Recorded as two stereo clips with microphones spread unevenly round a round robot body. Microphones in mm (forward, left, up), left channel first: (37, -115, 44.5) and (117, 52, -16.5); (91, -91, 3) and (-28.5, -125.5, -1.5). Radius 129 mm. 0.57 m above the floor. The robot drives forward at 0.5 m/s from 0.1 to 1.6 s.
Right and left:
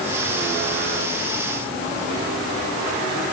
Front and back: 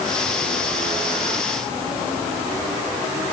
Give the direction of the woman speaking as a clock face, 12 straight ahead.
I don't hear a woman speaking.